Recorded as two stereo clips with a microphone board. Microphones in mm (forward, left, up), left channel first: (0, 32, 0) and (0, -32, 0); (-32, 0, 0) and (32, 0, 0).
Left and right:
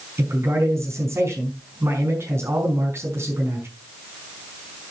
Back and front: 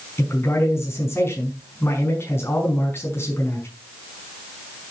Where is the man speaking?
135° right, 5.5 m.